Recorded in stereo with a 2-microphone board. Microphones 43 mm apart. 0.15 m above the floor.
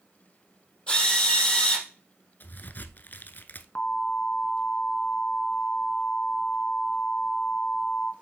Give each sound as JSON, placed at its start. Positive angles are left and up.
{"t": 0.9, "sound": "a drill", "side_deg": 20, "distance_m": 4.0}
{"t": 2.4, "sound": "a crack", "side_deg": 50, "distance_m": 0.8}
{"t": 3.8, "sound": "an alarm", "side_deg": 35, "distance_m": 1.1}